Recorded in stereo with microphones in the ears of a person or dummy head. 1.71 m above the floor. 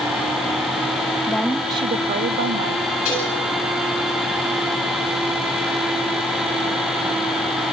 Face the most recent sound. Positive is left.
turn(degrees=45)  # may be behind; listen again after turning